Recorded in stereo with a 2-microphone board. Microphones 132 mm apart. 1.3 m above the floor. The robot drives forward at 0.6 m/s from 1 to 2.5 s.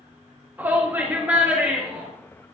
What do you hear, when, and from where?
0.6 s a shout: 15° right (ahead or behind), 1.8 m; by 2.1 s 10° right (ahead or behind), 2.5 m